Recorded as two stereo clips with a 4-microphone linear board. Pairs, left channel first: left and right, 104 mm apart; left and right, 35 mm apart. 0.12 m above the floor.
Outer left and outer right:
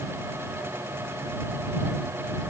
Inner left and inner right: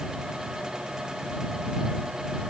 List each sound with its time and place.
Only background noise.